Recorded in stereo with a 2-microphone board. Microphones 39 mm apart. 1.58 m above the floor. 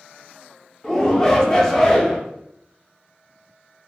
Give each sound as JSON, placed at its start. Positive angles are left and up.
{"t": 0.8, "sound": "a shout", "side_deg": 20, "distance_m": 0.7}